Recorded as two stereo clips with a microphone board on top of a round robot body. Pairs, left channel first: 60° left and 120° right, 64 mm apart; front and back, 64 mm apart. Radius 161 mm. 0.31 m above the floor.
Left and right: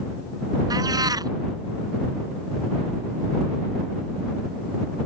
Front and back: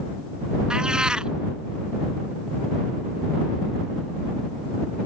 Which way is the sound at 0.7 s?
105° right.